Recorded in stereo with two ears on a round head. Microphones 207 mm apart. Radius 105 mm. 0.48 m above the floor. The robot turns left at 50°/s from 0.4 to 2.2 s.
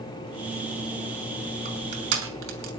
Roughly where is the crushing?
Right.